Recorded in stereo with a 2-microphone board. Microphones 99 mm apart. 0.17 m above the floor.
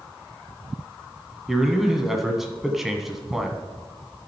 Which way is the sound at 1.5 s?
5° right (ahead or behind).